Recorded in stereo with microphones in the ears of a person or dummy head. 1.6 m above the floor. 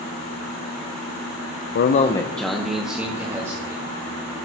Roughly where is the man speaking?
Left.